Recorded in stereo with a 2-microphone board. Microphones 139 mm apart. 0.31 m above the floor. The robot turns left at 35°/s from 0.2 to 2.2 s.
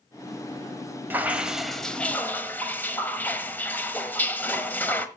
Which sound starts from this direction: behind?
Dripping, at 1.1 s.